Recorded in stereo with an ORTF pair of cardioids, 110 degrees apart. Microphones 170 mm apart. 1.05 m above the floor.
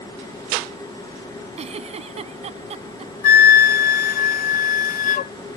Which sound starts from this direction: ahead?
A machine running, at 0.0 s.